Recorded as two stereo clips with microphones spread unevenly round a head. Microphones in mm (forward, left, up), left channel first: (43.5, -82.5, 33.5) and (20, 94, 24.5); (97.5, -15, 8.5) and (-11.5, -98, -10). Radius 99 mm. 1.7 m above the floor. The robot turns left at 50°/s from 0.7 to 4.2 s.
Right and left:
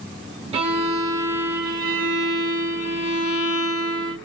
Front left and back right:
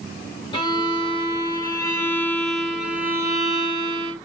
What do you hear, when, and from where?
0.5 s a violin: 55° left, 1.6 m; by 4.2 s 120° right, 1.6 m